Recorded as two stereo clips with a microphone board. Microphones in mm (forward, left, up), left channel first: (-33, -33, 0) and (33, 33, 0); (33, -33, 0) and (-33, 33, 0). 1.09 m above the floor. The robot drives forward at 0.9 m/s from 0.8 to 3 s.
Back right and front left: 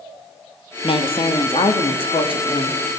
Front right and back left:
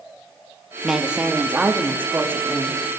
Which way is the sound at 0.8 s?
140° right.